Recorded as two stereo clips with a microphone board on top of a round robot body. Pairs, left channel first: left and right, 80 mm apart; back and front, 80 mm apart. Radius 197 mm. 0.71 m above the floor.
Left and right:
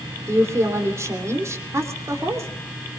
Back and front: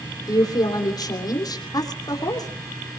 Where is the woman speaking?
145° right, 3 m.